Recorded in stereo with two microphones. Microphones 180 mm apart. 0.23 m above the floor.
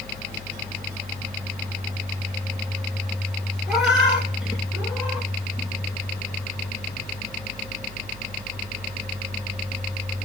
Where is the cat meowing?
Centre (ahead or behind), 2.5 m; by 5.3 s 5° right (ahead or behind), 1.5 m.